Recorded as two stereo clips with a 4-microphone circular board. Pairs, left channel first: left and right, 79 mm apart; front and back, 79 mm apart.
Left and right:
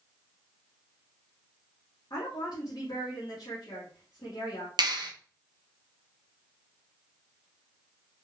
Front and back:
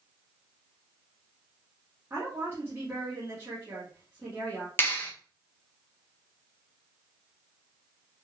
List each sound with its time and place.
2.1 s a woman speaking: 120° left, 2 m
4.8 s a clap: 65° right, 1.2 m